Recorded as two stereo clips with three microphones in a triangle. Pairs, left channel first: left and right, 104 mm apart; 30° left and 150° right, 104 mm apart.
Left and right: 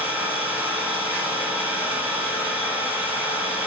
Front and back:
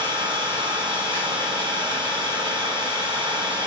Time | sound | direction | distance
0.0 | an engine running | 160° right | 1.1 m